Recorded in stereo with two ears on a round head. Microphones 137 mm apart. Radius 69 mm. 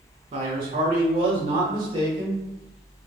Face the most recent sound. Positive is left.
turn(degrees=-25)  # may be behind; listen again after turning